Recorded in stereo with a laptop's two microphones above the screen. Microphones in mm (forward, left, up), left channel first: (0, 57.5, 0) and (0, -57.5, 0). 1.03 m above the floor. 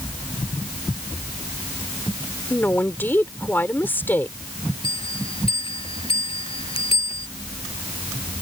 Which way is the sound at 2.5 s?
15° left (ahead or behind).